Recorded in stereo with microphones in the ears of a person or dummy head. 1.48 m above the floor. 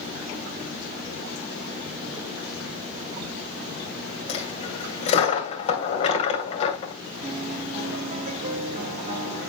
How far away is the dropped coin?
About 2 m.